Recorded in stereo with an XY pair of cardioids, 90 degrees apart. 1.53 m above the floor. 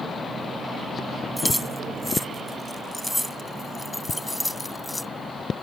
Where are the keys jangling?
Straight ahead; by 5.1 s 15° left.